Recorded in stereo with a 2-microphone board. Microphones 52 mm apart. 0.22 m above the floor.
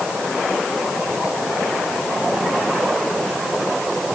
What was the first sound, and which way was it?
Only background noise.